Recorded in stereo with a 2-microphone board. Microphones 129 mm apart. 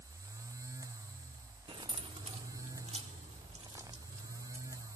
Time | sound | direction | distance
1.7 | keys jangling | 45° right (ahead or behind) | 1.5 m